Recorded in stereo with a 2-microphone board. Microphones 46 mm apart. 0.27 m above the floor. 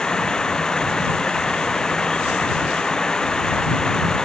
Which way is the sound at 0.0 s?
15° left (ahead or behind).